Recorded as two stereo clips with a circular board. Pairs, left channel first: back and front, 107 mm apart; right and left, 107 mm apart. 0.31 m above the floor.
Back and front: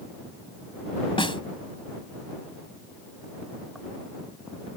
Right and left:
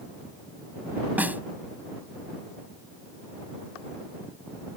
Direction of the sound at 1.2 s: 160° left.